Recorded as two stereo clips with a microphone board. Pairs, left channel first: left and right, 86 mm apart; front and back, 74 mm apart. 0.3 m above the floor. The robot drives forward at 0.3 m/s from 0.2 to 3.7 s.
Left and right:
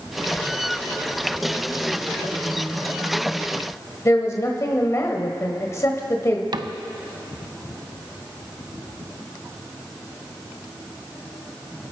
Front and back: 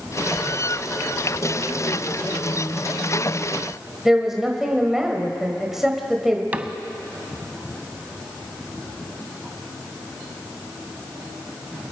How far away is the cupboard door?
About 0.6 m.